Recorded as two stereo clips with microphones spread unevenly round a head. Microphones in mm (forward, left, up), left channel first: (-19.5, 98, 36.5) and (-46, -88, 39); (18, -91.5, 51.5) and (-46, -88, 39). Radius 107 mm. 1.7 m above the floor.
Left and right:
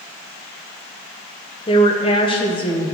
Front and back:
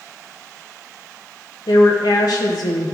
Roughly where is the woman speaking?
Ahead.